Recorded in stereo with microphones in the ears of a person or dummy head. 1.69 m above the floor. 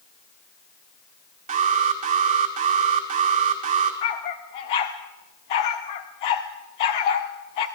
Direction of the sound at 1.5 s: 40° right (ahead or behind).